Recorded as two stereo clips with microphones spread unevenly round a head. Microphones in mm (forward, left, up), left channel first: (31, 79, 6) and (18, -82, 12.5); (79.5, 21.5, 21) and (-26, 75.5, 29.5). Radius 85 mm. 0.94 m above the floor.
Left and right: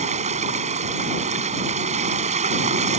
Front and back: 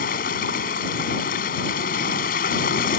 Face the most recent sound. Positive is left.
turn(degrees=-45)